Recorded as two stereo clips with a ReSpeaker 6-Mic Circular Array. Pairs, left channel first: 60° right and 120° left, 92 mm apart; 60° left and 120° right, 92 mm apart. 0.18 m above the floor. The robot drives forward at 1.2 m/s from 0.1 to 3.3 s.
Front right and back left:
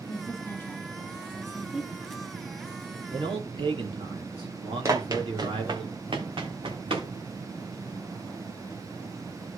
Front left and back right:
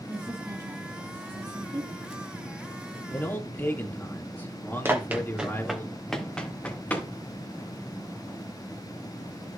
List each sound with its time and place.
0.1 s a woman speaking: 65° right, 1.5 m; by 1.9 s 155° right, 2.5 m
3.1 s a man speaking: 125° left, 3.5 m
4.8 s running footsteps: 175° left, 2.5 m; by 7.1 s 130° left, 3.5 m